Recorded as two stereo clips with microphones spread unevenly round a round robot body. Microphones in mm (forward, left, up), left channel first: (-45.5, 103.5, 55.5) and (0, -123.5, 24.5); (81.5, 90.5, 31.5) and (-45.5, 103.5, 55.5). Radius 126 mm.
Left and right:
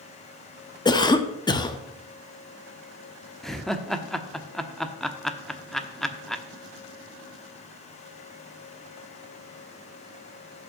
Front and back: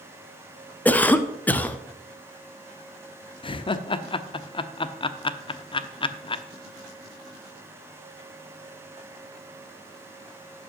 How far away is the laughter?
About 0.9 m.